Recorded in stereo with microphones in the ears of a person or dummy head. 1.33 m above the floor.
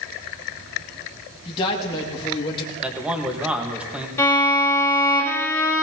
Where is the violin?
15° left (ahead or behind), 3.5 m.